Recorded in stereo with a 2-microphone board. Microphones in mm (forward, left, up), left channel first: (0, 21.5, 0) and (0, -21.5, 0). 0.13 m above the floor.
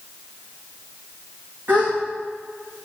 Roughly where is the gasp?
Right.